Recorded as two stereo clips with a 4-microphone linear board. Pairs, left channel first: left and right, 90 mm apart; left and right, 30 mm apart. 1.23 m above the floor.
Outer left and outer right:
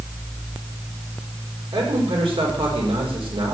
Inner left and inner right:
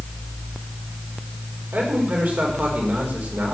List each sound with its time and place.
1.7 s a man speaking: 75° right (ahead or behind), 4.5 m